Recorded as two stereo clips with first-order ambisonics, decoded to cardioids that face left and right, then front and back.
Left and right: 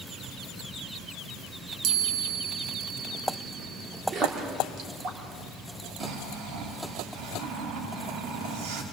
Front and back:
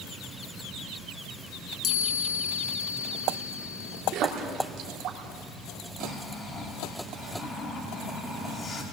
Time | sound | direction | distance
1.8 | a chime | 50° right | 2 m
4.1 | a splash | 145° right | 3 m
6.0 | snoring | 70° right | 2.5 m